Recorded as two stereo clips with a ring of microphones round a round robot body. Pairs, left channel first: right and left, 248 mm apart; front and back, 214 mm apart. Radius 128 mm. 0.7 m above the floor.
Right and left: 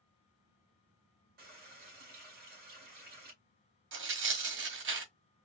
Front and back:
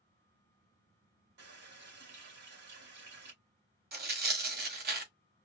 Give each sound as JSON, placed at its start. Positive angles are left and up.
{"t": 1.4, "sound": "a running tap", "azimuth_deg": 145, "distance_m": 2.5}
{"t": 3.9, "sound": "tearing paper", "azimuth_deg": 135, "distance_m": 1.5}